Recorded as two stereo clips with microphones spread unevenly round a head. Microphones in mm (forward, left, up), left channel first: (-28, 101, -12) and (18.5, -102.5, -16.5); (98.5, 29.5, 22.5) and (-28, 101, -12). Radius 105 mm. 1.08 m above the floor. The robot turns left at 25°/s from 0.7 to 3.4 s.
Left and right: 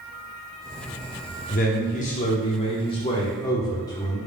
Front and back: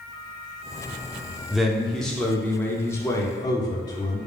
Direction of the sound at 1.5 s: 85° left.